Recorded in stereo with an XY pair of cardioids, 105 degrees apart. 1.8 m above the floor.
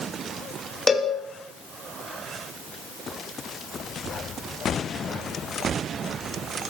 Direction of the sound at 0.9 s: 20° left.